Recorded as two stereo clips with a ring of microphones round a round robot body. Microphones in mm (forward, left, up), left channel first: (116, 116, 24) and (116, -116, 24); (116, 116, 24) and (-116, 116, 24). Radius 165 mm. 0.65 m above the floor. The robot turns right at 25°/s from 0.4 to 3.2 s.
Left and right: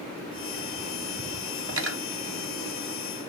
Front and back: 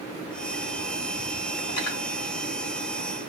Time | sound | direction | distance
1.7 | cutlery clinking | 60° right | 1.3 m